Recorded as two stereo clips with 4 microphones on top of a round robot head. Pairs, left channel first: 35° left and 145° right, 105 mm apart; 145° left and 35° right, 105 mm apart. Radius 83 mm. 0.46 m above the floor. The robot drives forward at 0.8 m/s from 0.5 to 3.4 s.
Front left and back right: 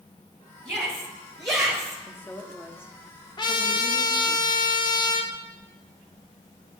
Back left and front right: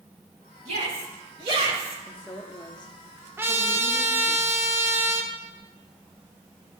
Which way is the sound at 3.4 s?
20° left.